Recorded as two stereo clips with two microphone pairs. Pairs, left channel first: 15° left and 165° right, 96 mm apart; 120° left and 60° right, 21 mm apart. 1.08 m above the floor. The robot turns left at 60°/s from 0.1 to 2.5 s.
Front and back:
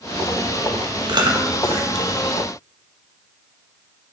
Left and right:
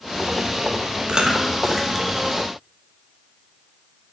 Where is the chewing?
115° right, 0.8 m; by 2.1 s 175° right, 0.8 m.